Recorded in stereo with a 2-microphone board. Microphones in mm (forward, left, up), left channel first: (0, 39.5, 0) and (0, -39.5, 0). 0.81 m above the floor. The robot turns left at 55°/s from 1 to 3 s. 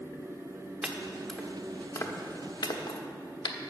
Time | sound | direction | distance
0.8 | chopping | 10° right (ahead or behind) | 1.1 m